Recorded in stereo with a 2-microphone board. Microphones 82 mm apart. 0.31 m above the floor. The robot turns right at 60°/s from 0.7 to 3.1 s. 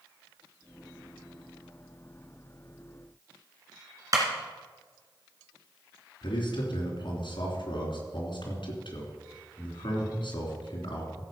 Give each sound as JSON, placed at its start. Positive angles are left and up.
{"t": 4.1, "sound": "a clap", "side_deg": -45, "distance_m": 3.0}
{"t": 6.2, "sound": "a man speaking", "side_deg": 65, "distance_m": 3.0}